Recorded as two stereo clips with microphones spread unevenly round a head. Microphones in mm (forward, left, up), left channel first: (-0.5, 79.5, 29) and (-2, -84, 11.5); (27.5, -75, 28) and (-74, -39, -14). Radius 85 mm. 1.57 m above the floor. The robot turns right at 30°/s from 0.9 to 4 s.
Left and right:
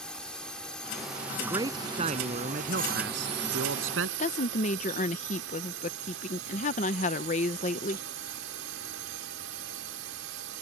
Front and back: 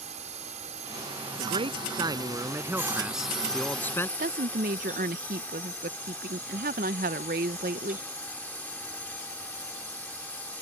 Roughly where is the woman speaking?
Behind left.